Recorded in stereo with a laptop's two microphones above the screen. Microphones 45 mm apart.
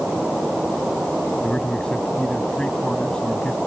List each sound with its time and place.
1.4 s a man speaking: 20° left (ahead or behind)